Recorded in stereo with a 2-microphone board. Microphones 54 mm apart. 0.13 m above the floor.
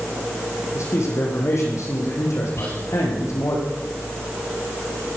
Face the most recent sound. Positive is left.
turn(degrees=55)  # may be behind; listen again after turning